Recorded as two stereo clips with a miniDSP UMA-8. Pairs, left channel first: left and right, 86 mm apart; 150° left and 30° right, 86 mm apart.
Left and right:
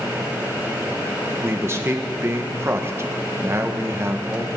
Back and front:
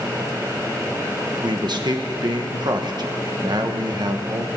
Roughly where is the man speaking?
Ahead right.